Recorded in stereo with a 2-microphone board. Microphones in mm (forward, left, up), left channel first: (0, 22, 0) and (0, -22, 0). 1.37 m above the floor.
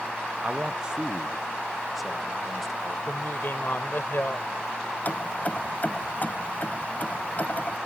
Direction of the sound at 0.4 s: 35° right (ahead or behind).